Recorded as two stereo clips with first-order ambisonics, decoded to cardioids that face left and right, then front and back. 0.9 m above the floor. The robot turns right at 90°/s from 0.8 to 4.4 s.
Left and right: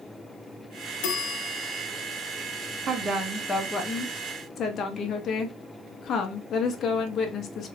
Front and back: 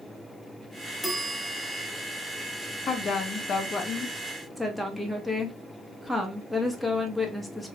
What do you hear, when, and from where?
1.0 s a bell: 85° left, 0.6 m; by 1.9 s 160° left, 0.6 m
2.9 s a woman speaking: 50° right, 0.6 m; by 7.8 s 90° left, 0.6 m